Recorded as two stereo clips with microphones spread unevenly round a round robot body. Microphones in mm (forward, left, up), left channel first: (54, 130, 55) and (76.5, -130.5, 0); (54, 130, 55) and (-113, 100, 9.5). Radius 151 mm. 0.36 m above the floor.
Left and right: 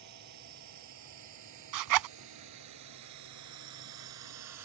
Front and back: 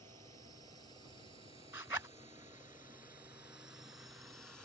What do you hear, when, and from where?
0.0 s a drone: 100° right; by 4.7 s 80° right
1.7 s a zipper: 85° right